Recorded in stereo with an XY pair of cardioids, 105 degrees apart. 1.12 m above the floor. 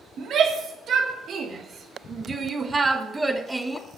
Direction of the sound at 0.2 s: 60° right.